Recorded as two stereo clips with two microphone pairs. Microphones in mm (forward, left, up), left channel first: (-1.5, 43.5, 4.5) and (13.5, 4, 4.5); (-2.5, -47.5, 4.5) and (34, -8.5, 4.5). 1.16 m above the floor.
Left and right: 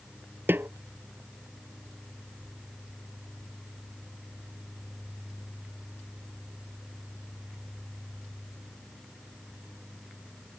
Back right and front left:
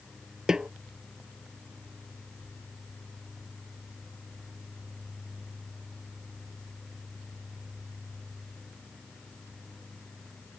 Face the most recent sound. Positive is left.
turn(degrees=-30)